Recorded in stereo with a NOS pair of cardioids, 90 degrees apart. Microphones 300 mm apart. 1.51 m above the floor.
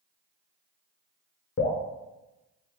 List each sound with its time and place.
1.6 s dripping: 40° left, 0.9 m